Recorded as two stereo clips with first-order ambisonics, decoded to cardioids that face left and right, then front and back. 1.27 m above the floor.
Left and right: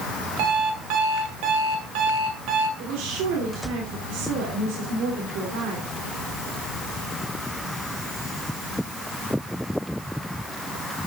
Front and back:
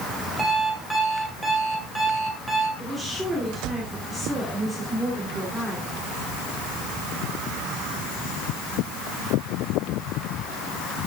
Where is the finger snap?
No finger snap in this recording.